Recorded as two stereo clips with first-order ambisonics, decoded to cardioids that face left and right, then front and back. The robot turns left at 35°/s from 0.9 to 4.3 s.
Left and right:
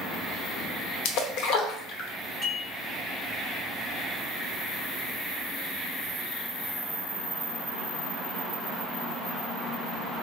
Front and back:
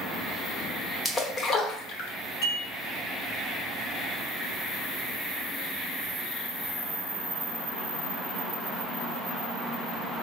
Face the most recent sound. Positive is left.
turn(degrees=-85)